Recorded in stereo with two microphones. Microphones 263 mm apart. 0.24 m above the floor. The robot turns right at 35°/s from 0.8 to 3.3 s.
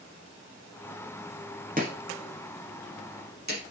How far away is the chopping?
About 3.5 m.